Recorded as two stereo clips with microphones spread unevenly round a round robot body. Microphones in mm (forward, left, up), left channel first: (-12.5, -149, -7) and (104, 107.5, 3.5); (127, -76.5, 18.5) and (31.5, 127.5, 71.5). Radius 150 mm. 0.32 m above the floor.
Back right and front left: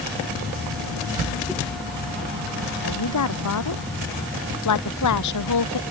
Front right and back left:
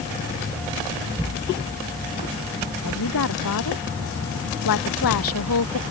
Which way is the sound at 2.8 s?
90° right.